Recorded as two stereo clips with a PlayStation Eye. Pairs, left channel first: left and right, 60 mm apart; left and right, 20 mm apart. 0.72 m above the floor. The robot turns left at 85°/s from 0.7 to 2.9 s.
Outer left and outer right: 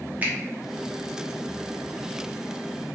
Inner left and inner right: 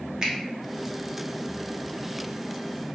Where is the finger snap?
25° right (ahead or behind), 0.6 m.